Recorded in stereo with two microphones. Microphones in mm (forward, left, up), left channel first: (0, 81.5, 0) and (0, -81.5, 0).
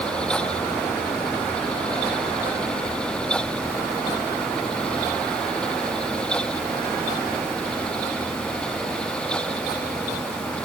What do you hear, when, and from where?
Only background noise.